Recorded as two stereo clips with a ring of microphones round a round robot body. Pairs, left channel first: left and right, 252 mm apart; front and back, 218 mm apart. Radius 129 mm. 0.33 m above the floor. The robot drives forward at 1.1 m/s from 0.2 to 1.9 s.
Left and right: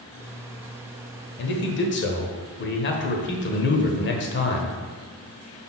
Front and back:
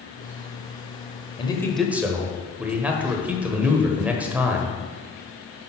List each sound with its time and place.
1.4 s a man speaking: 60° left, 1.2 m; by 4.8 s 100° left, 1.1 m